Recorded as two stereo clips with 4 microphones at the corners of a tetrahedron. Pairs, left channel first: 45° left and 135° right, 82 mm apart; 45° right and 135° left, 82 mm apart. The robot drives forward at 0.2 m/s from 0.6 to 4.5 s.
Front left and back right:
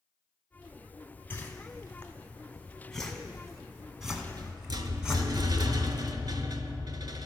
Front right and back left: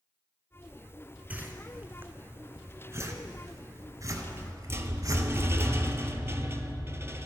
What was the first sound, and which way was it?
A whoosh, 85° left.